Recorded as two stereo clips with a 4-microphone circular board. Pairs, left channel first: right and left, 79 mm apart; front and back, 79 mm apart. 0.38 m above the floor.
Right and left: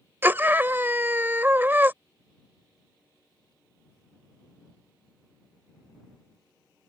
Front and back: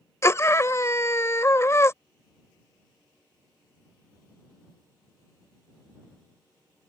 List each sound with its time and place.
0.2 s a scream: 35° left